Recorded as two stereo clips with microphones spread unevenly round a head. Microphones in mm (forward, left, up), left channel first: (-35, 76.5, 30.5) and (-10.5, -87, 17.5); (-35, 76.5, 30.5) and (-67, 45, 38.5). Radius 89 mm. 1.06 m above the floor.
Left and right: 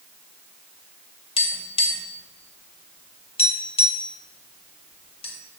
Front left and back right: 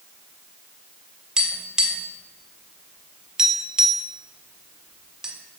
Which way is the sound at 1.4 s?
155° left.